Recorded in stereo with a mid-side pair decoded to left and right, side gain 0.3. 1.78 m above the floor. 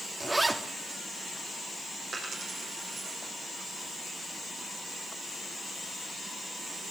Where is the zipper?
30° right, 3 m.